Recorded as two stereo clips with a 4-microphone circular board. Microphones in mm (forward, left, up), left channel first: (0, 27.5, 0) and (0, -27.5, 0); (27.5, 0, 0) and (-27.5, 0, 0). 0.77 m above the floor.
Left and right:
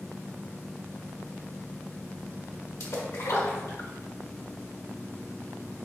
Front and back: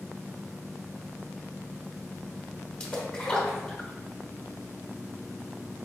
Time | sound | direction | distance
2.8 | a splash | 75° left | 1.1 m